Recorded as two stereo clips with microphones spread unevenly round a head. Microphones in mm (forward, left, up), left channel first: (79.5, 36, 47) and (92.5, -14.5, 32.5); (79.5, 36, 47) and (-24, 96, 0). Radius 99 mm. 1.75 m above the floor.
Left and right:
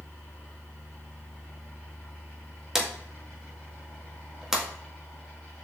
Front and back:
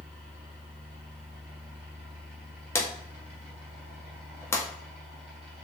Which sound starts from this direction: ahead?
A drawer, at 2.8 s.